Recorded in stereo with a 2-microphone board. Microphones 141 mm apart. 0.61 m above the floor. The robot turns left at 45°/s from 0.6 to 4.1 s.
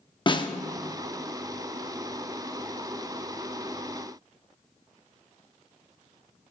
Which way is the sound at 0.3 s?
35° left (ahead or behind).